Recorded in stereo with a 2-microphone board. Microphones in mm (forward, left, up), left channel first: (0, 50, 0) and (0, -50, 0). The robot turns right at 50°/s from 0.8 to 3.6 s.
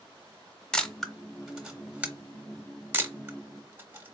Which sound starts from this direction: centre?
A camera shutter, at 0.7 s.